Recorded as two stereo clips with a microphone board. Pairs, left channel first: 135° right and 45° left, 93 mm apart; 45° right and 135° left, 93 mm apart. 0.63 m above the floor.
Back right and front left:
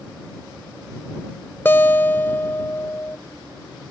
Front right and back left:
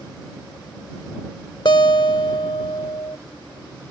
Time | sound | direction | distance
1.6 | a guitar | 70° right | ?